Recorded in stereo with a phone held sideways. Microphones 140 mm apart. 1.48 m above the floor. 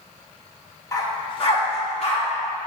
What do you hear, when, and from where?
0.9 s a dog barking: 20° left (ahead or behind), 0.8 m; by 2.2 s 45° left (ahead or behind), 2 m